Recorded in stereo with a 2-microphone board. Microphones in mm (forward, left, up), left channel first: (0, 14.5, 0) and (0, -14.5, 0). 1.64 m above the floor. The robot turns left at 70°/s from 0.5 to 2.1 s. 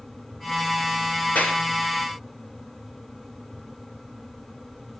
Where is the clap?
80° left, 5 m.